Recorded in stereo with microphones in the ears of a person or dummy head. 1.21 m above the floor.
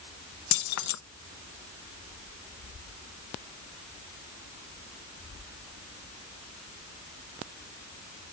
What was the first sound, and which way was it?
Keys jangling, 65° left (ahead or behind).